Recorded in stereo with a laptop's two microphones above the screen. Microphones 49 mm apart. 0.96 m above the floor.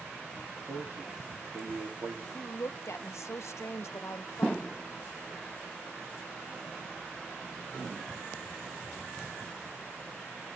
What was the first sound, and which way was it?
A man speaking, 55° right (ahead or behind).